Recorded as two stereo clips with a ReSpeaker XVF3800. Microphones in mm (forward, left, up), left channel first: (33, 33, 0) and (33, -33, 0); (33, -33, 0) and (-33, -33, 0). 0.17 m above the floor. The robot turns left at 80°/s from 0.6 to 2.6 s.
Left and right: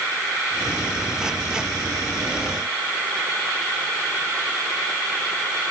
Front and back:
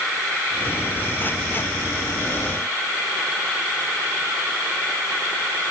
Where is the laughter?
I don't hear laughter.